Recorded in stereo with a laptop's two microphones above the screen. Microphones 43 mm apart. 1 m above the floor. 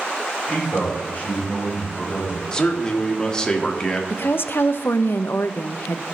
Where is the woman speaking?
60° left (ahead or behind), 0.5 m.